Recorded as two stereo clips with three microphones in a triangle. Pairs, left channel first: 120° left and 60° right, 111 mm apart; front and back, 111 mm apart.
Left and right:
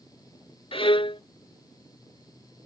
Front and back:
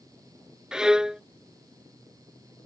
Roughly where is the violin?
Left.